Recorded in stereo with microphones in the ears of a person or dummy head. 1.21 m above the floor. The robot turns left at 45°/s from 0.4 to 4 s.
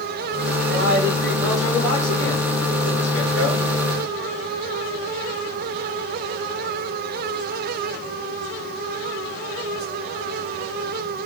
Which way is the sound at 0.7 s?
140° right.